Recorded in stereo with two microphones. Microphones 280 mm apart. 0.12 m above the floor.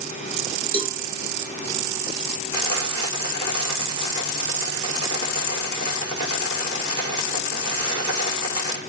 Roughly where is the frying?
Right.